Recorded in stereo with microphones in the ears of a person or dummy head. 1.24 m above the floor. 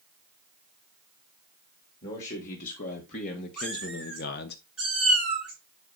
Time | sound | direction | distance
2.0 | a man speaking | 45° left (ahead or behind) | 1.8 m
3.6 | a cat meowing | 5° right (ahead or behind) | 4 m